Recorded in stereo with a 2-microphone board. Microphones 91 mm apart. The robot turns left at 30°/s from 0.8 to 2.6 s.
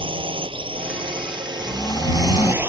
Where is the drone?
100° right; by 2.7 s 155° right.